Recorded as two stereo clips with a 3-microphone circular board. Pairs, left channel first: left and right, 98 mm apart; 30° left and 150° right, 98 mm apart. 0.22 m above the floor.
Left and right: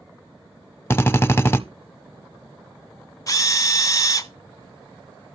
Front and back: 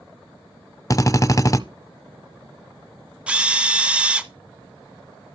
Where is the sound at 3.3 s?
135° left, 0.7 m.